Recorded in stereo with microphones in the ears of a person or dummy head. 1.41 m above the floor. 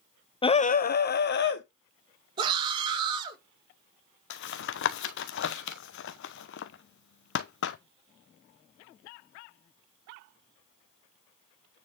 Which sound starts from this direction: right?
A scream, at 2.4 s.